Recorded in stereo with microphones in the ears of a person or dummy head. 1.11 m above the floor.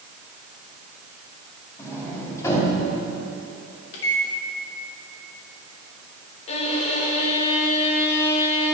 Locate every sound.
1.8 s a sliding door: 20° left (ahead or behind), 2.5 m
3.9 s a microwave: 75° left (ahead or behind), 1.8 m
6.5 s a violin: 40° left (ahead or behind), 1.3 m